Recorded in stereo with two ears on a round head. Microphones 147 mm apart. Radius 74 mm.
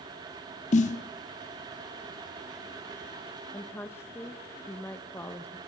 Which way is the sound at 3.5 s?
15° left (ahead or behind).